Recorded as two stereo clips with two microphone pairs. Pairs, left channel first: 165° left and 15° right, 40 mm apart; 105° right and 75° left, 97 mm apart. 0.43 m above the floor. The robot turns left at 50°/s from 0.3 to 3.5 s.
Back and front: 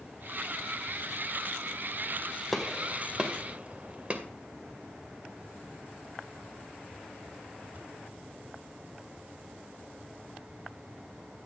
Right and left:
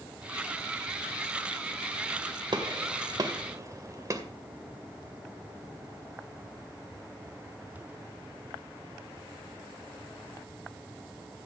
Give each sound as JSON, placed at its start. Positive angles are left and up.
{"t": 2.5, "sound": "a gunshot", "azimuth_deg": 80, "distance_m": 2.0}